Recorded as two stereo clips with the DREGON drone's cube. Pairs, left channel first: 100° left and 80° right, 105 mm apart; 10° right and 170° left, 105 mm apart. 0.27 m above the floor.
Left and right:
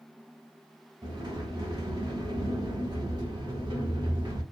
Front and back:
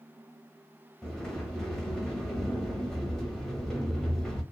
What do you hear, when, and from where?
1.0 s a sliding door: 95° right, 0.8 m